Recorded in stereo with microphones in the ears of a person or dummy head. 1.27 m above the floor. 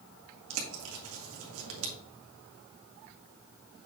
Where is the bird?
85° right, 1.6 m.